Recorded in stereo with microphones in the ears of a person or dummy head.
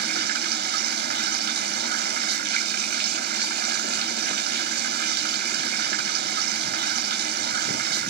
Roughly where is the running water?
Right.